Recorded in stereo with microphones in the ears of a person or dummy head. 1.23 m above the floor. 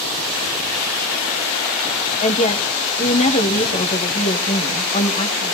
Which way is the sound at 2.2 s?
35° left (ahead or behind).